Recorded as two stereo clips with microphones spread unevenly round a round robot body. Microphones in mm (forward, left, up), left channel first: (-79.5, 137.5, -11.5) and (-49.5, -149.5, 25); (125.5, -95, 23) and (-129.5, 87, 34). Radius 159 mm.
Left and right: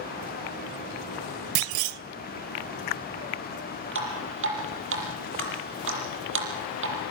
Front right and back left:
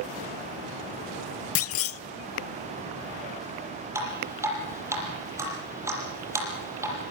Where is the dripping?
135° right, 7 m.